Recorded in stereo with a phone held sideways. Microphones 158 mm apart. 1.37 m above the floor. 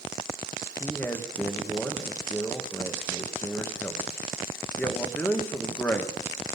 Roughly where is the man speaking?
Centre.